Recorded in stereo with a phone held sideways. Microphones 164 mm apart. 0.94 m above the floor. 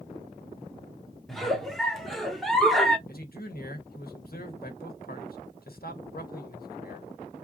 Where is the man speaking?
65° left (ahead or behind), 1.4 m.